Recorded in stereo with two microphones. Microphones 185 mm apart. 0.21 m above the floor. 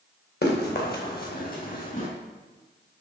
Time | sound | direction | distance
0.4 | running footsteps | 60° left (ahead or behind) | 3.5 m